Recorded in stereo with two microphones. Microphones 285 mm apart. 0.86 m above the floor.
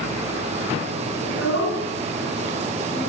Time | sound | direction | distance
1.2 | a child speaking | 55° left (ahead or behind) | 5.5 m